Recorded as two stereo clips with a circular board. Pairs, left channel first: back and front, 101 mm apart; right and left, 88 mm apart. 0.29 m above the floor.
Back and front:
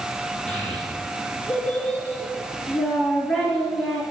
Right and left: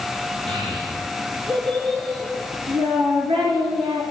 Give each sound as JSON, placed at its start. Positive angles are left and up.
{"t": 0.5, "sound": "a child speaking", "azimuth_deg": 100, "distance_m": 3.0}